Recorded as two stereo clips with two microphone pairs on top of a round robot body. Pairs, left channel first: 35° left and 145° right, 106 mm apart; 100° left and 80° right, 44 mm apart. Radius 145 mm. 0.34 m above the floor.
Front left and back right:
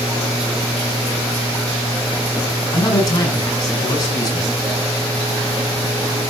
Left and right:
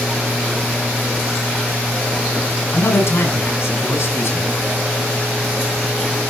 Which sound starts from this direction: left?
A man speaking, at 2.7 s.